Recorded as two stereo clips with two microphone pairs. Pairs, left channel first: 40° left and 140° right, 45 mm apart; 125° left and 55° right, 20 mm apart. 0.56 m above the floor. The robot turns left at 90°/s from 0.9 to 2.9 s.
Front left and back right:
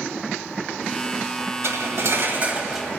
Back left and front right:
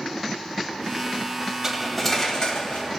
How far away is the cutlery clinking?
About 1.5 m.